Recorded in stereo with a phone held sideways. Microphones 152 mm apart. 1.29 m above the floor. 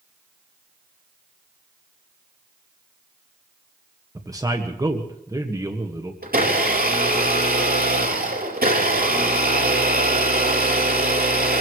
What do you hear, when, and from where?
4.2 s a man speaking: 25° right (ahead or behind), 1.6 m
6.2 s a blender: 85° right, 4.5 m